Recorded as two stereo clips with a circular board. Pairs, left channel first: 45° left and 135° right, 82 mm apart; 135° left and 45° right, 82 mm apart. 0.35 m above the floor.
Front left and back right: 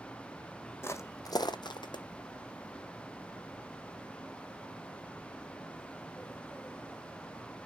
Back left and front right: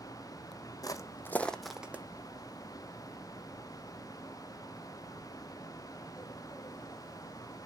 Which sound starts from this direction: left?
Footsteps, at 0.8 s.